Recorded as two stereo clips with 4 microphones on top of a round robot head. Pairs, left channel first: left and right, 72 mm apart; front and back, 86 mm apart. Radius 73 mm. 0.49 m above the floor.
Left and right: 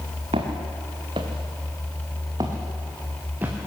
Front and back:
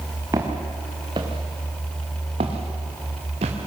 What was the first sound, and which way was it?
Footsteps, 115° right.